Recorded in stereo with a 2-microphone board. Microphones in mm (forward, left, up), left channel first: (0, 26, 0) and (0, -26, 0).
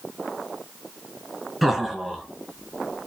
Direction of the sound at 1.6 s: Centre (ahead or behind).